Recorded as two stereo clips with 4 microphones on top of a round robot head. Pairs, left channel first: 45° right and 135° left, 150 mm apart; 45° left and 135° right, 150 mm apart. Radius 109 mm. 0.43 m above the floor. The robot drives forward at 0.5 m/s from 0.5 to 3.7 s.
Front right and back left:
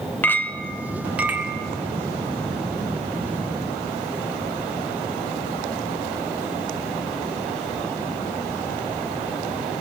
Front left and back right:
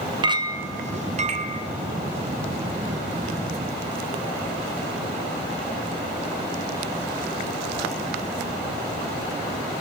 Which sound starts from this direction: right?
A clink, at 0.2 s.